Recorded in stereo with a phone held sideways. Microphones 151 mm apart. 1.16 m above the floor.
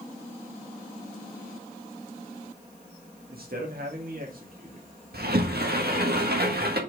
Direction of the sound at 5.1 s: 80° right.